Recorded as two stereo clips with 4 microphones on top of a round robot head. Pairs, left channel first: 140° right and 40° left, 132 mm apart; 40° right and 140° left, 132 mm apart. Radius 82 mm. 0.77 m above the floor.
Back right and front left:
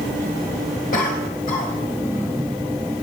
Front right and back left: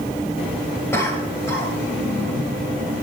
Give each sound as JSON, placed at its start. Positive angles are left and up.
{"t": 0.9, "sound": "a cough", "azimuth_deg": -110, "distance_m": 5.0}